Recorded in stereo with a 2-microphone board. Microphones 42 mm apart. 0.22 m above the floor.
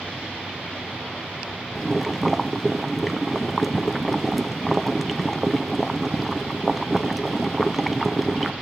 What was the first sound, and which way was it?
Boiling, centre (ahead or behind).